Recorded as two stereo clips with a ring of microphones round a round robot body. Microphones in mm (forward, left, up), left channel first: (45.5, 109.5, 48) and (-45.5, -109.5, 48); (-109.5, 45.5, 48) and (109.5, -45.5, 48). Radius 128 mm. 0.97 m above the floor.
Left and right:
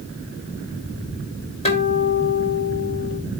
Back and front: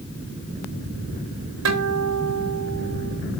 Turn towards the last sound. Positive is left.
turn(degrees=0)